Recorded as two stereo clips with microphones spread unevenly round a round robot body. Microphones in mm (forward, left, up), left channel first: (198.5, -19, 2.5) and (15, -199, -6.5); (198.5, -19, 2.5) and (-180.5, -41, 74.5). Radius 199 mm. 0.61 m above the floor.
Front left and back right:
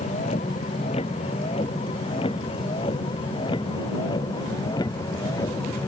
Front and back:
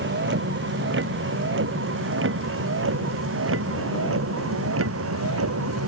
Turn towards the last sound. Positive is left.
turn(degrees=125)